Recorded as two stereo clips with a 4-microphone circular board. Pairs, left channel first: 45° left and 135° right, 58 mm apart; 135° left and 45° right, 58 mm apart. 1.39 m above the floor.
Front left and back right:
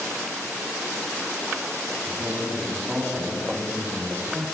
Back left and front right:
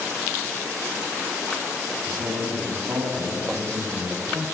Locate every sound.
2.0 s a man speaking: 75° right, 9.5 m